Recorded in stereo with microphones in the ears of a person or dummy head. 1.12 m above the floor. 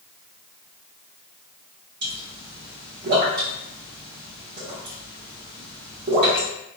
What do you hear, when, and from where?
2.0 s a pop: 50° right (ahead or behind), 1.0 m